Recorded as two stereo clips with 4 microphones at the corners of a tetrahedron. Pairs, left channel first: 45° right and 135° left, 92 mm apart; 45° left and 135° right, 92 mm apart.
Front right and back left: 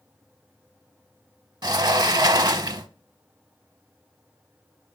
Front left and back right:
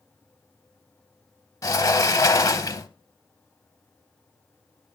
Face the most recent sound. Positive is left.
turn(degrees=95)